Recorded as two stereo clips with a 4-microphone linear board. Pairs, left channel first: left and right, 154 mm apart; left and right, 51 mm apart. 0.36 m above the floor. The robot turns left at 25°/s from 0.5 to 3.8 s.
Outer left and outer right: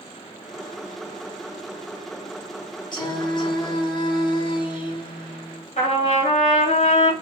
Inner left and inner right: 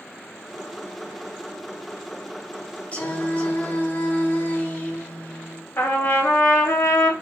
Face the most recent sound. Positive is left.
turn(degrees=45)  # may be behind; listen again after turning